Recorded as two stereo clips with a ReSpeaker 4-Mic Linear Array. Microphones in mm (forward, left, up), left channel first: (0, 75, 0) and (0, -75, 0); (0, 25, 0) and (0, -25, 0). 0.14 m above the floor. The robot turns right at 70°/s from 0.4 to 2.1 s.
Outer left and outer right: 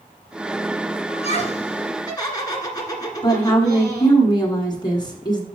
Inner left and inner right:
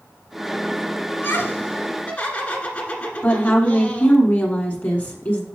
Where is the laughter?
70° left, 1.7 m; by 4.2 s 140° left, 1.7 m.